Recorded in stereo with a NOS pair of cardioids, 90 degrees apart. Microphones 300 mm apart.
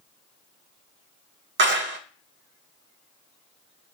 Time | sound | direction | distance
1.6 | a clap | 40° right | 0.5 m